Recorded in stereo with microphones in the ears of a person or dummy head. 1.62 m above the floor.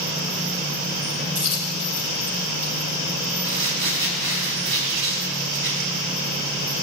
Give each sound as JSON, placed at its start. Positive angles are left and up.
{"t": 1.4, "sound": "a dropped coin", "side_deg": -35, "distance_m": 4.0}
{"t": 3.4, "sound": "crumpling", "side_deg": -70, "distance_m": 4.0}